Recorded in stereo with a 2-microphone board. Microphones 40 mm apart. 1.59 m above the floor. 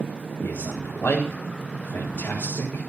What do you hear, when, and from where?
0.4 s a man speaking: 40° left (ahead or behind), 5 m